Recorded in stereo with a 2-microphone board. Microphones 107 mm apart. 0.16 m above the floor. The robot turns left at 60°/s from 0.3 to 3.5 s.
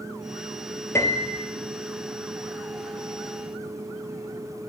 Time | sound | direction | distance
0.9 | a piano | 155° left | 1.4 m